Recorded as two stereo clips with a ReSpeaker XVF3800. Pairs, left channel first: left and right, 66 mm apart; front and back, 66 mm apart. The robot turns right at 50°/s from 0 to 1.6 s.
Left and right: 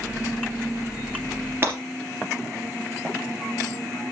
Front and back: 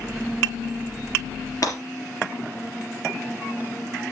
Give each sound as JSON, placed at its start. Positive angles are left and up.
{"t": 1.6, "sound": "breaking glass", "azimuth_deg": -35, "distance_m": 3.5}